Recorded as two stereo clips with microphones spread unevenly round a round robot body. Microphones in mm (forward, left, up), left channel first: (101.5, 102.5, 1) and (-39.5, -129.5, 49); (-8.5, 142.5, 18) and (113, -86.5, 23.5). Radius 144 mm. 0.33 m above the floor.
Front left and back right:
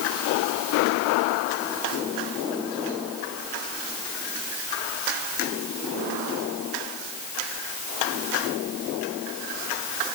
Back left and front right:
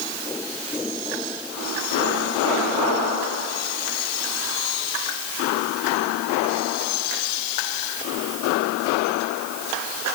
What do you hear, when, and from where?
Only background noise.